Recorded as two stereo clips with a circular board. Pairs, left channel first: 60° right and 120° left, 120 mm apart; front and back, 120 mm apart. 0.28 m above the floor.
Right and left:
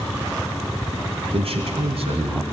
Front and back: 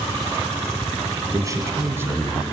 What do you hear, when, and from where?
1.3 s a man speaking: 130° left, 2 m; by 2.4 s 105° left, 2.5 m